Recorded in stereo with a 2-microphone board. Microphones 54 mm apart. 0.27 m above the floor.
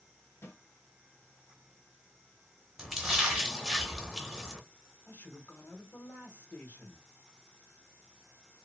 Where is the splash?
5° right (ahead or behind), 1.0 m.